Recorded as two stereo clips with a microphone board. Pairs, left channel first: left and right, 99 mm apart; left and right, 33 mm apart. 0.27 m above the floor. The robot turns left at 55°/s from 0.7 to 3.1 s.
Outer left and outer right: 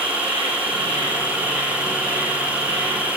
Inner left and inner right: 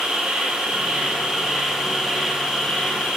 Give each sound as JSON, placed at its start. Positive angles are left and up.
{"t": 0.0, "sound": "an insect", "azimuth_deg": -120, "distance_m": 3.5}